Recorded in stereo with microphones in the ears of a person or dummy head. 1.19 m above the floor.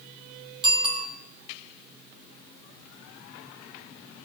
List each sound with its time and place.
0.6 s a bicycle bell: 30° right (ahead or behind), 2.5 m